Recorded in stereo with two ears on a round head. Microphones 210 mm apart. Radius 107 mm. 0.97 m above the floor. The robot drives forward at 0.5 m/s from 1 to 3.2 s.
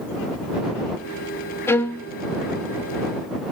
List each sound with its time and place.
1.7 s a violin: 10° left (ahead or behind), 0.6 m